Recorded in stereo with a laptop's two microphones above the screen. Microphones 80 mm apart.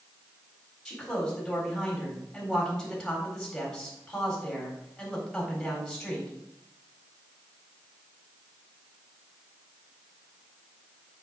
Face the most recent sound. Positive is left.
turn(degrees=0)  # may be behind; listen again after turning